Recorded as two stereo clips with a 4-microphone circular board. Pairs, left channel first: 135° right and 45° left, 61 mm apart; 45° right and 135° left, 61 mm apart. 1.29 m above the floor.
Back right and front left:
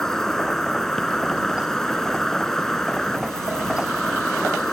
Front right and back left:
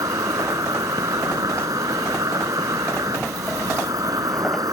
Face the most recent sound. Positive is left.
turn(degrees=140)